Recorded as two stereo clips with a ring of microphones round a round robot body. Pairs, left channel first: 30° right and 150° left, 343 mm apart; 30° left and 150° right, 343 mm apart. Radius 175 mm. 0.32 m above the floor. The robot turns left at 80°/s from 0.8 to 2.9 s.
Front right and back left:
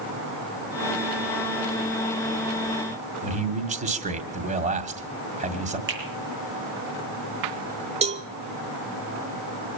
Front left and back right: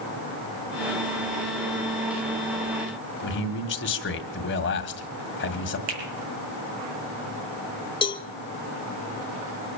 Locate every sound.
3.2 s a man speaking: 85° left, 1.7 m
5.9 s a finger snap: 155° right, 6.5 m
8.0 s a cowbell: 95° left, 1.0 m